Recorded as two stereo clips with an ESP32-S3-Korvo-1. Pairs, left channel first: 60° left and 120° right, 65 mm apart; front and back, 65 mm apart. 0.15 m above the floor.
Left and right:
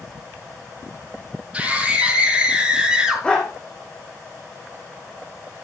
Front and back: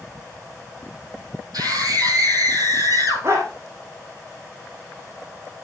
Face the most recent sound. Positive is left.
turn(degrees=135)